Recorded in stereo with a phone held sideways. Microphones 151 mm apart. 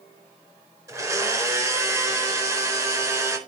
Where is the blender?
20° right (ahead or behind), 4 m.